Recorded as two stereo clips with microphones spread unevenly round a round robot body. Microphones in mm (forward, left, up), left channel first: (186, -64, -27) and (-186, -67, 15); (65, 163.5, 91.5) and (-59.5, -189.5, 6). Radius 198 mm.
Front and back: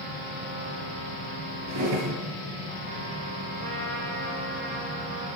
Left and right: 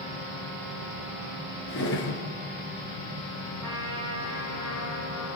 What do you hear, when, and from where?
1.7 s a drawer: 130° left, 2.5 m
3.6 s a trumpet: 170° left, 8 m